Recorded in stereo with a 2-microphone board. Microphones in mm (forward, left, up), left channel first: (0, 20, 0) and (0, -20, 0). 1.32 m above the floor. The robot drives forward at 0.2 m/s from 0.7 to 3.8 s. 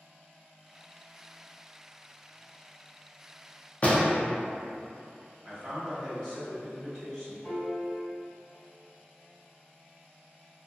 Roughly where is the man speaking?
Centre.